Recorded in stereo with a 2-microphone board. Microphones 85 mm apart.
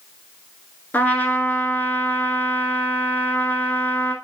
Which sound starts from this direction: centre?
A trumpet, at 0.9 s.